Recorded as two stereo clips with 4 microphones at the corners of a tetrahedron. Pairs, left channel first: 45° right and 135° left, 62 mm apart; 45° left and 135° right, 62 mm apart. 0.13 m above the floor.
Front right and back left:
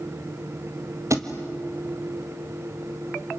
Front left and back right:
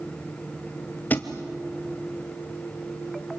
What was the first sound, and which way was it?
A thud, 105° left.